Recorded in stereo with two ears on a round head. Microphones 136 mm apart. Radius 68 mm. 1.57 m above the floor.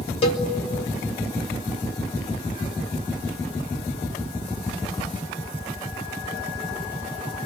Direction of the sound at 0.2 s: 40° left (ahead or behind).